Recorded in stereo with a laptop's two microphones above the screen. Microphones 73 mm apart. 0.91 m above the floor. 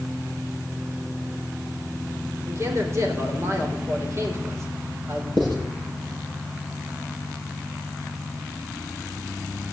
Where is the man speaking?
40° right (ahead or behind), 4 m.